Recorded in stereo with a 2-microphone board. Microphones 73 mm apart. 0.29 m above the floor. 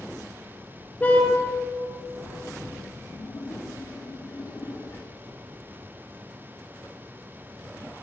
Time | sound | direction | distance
1.0 | a car horn | 20° left (ahead or behind) | 3 m
3.1 | a splash | 45° left (ahead or behind) | 3 m